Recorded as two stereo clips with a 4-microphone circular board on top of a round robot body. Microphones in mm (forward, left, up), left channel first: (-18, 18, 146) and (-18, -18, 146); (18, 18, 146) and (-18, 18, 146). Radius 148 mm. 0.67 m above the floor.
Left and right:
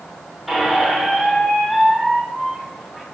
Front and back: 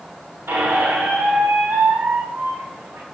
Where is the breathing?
No breathing in this recording.